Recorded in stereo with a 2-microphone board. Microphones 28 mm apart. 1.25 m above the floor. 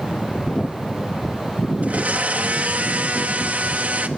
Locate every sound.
1.8 s a blender: 65° right (ahead or behind), 1.7 m